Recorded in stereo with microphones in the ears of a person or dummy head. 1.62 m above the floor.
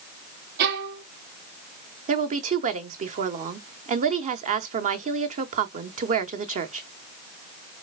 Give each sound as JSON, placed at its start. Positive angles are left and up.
{"t": 0.6, "sound": "a violin", "side_deg": -50, "distance_m": 0.8}
{"t": 2.1, "sound": "a woman speaking", "side_deg": -45, "distance_m": 1.0}